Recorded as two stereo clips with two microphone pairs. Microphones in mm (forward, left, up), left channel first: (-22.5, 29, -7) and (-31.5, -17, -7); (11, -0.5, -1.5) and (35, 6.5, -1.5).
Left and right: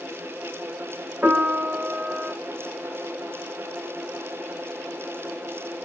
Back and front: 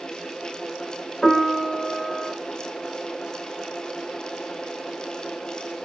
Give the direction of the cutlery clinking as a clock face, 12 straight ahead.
I don't hear cutlery clinking.